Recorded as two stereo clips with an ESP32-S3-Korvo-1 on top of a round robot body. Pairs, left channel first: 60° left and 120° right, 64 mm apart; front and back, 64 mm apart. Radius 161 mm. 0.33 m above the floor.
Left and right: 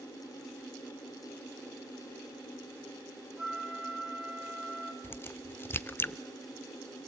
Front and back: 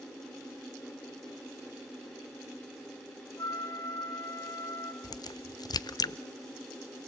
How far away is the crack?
About 0.6 m.